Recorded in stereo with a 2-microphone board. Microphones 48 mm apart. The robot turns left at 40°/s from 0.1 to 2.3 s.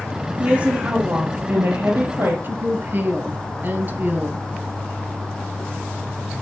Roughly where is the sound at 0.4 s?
Ahead right.